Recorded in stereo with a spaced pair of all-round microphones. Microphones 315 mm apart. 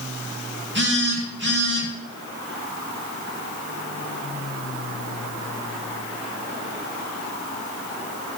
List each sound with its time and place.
0.8 s a phone buzzing: 35° right (ahead or behind), 1.8 m